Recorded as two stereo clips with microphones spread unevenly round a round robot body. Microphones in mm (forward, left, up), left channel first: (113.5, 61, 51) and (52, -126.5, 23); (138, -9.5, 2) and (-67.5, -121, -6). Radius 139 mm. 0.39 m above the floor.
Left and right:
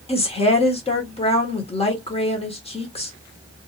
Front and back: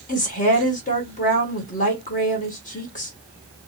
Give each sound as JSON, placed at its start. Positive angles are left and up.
{"t": 0.1, "sound": "a woman speaking", "azimuth_deg": 30, "distance_m": 1.3}